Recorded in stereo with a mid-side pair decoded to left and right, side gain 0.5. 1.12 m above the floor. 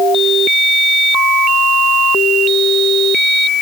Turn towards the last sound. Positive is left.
No sound to turn to.